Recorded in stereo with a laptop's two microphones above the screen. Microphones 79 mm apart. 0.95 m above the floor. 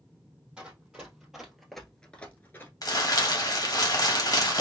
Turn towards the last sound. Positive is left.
turn(degrees=50)  # may be behind; listen again after turning